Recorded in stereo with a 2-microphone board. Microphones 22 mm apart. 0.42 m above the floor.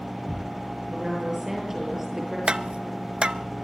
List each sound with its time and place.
0.9 s a woman speaking: 10° right (ahead or behind), 8 m
2.5 s tapping: 45° right (ahead or behind), 0.8 m